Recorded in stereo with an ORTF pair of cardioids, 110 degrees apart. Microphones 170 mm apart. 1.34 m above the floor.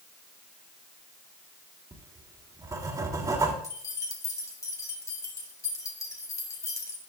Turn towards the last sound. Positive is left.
turn(degrees=20)